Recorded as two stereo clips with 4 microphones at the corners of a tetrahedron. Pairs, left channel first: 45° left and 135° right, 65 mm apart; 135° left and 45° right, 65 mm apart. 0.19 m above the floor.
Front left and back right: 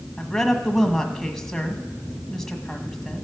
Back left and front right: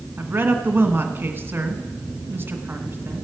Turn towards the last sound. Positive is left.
turn(degrees=-35)